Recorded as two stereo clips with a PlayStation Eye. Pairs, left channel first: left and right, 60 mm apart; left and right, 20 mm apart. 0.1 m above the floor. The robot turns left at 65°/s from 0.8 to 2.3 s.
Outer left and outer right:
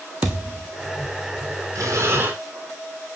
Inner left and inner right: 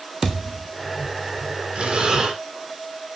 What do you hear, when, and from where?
0.2 s a thud: 30° right (ahead or behind), 1.3 m
1.8 s breathing: 105° right, 1.6 m; by 2.4 s 140° right, 1.6 m